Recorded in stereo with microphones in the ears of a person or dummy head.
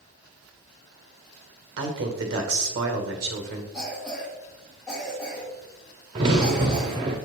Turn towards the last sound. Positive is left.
turn(degrees=-20)  # may be behind; listen again after turning